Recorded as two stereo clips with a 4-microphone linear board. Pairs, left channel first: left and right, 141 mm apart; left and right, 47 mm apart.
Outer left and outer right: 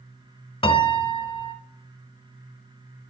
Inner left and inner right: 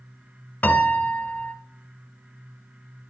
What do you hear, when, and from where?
0.6 s a piano: 40° left (ahead or behind), 0.9 m